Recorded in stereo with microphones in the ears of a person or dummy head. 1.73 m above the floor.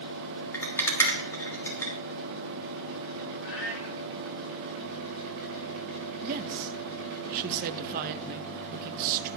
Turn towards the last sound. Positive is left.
turn(degrees=-50)  # may be behind; listen again after turning